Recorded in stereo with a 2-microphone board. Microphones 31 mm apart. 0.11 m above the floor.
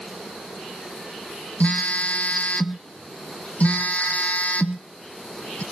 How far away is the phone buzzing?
About 0.7 m.